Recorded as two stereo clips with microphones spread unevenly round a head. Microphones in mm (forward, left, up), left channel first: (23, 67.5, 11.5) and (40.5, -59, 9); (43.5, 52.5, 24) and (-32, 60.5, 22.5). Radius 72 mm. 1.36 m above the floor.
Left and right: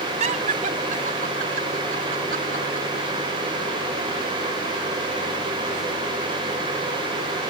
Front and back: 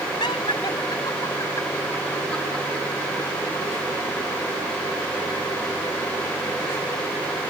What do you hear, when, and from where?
0.2 s laughter: 55° right; by 2.9 s 100° right